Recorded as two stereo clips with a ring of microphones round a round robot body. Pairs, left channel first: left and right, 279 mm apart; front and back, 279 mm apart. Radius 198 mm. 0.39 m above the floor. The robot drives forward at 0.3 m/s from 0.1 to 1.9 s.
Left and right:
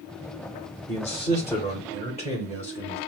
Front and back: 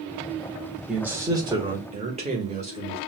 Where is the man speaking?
100° left, 0.8 m; by 3.0 s 140° left, 0.9 m.